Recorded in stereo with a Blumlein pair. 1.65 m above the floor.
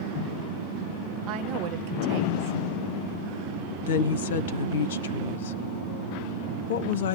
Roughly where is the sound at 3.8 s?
Ahead left.